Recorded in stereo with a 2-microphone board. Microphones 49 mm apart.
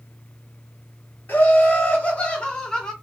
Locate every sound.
1.3 s laughter: 45° left (ahead or behind), 1.3 m; by 2.9 s 15° left (ahead or behind), 1.4 m